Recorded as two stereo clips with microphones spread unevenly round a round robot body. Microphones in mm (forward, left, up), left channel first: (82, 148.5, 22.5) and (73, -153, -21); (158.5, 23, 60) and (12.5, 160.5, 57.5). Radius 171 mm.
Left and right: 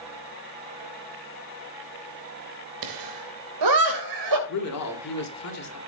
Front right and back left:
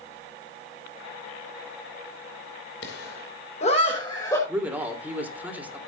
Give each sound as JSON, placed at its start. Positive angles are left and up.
{"t": 2.8, "sound": "laughter", "azimuth_deg": -90, "distance_m": 2.5}
{"t": 4.5, "sound": "a man speaking", "azimuth_deg": 55, "distance_m": 3.5}